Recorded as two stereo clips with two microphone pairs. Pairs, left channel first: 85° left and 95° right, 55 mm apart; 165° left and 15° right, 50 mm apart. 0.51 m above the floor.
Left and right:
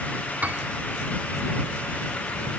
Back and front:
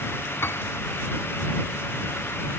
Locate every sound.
0.4 s a piano: 155° right